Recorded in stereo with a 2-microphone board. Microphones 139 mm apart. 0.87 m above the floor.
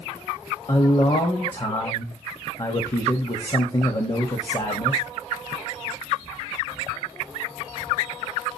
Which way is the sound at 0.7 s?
40° left (ahead or behind).